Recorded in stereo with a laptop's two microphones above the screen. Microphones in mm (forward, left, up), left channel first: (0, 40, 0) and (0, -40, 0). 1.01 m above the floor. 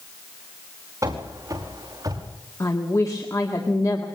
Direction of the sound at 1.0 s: 45° right (ahead or behind).